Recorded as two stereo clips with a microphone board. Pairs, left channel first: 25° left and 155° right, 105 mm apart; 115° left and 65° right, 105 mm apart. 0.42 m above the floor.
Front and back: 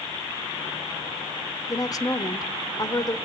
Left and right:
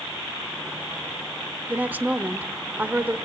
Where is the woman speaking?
5° right, 0.9 m.